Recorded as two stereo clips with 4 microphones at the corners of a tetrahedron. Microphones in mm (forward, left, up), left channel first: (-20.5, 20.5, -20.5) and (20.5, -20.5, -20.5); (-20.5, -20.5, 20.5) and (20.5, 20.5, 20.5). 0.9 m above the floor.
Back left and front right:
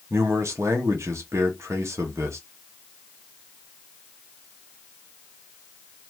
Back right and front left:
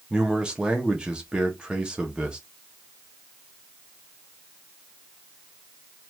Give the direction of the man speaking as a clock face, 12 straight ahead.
1 o'clock.